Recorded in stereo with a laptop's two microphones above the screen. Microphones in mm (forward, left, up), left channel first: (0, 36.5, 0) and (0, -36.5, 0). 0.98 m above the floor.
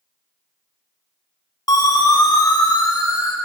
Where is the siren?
55° left (ahead or behind), 2 m; by 3.4 s 65° left (ahead or behind), 2.0 m.